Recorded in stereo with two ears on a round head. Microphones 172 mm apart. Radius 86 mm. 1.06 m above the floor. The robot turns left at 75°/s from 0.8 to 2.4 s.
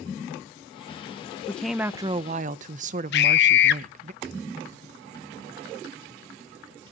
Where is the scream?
60° left (ahead or behind), 1.0 m.